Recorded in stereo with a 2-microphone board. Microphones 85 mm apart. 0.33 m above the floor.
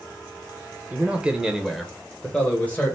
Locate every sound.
0.9 s a man speaking: 20° right (ahead or behind), 1.0 m; by 3.0 s 25° left (ahead or behind), 1.2 m